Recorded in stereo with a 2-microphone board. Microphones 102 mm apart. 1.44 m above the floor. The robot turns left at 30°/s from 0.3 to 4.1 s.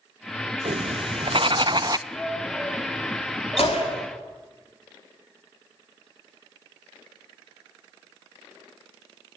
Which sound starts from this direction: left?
A gunshot, at 3.6 s.